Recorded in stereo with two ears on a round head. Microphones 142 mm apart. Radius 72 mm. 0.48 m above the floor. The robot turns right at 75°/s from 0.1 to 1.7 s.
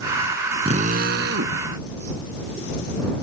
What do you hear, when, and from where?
0.7 s a drill: 140° right; by 1.6 s 70° right